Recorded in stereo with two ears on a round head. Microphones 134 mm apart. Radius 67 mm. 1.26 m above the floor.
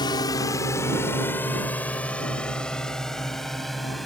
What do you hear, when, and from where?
0.0 s a drone: 30° left (ahead or behind); by 4.1 s centre (ahead or behind)